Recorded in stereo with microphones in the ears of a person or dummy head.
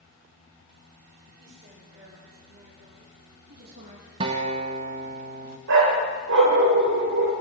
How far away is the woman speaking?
About 6 m.